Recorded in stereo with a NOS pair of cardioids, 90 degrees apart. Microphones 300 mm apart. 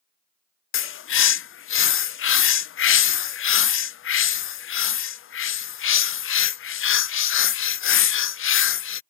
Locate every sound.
0.7 s a bird: 45° left